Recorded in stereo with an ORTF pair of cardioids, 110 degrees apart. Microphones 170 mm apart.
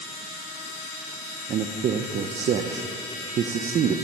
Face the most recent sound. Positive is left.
turn(degrees=-45)